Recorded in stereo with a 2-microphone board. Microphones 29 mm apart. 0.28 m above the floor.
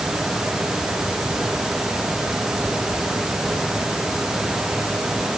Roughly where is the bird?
I don't hear a bird.